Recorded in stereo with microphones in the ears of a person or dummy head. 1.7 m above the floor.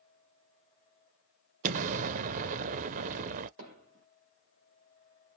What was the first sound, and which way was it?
An explosion, 40° right (ahead or behind).